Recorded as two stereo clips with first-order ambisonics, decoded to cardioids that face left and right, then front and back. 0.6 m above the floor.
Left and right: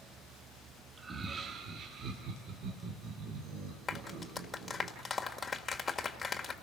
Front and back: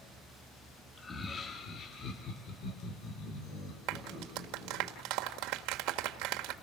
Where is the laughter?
50° right, 1.3 m.